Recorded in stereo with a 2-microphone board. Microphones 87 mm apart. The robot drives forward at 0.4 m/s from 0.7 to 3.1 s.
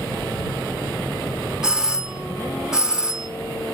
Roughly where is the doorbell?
Centre.